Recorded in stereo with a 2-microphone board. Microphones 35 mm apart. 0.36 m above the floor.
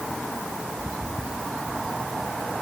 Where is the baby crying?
No baby crying in this recording.